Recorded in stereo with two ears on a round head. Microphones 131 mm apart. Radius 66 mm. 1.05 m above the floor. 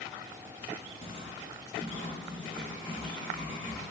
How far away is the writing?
About 1.0 m.